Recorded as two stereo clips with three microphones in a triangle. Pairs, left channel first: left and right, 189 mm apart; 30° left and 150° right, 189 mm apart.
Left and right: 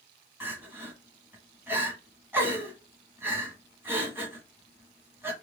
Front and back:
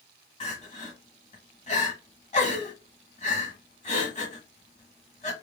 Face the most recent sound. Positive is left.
turn(degrees=-15)